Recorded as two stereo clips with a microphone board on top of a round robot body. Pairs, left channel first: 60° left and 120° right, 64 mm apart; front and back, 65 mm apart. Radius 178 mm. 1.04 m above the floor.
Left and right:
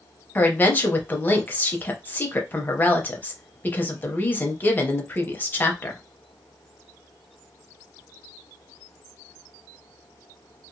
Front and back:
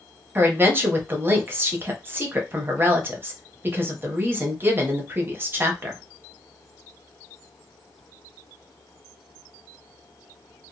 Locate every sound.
0.3 s a woman speaking: 120° left, 0.7 m